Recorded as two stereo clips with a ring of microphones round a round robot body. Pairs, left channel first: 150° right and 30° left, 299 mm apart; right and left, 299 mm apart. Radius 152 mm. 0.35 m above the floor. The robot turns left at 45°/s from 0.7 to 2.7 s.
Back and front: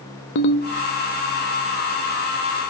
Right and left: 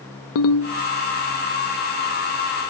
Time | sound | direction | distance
0.3 | a ringtone | 110° right | 0.6 m